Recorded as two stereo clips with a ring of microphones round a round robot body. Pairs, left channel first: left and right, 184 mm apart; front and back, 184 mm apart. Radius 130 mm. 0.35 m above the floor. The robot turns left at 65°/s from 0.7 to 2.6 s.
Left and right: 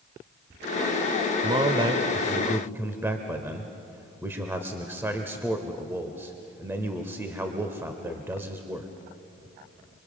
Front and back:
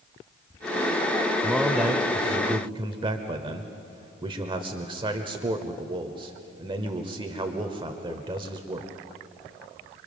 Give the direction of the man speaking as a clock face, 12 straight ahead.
3 o'clock.